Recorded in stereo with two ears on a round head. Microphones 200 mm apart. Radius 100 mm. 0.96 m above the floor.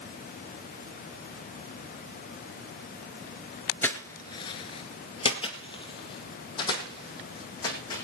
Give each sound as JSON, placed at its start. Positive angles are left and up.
{"t": 3.8, "sound": "footsteps", "side_deg": 10, "distance_m": 1.0}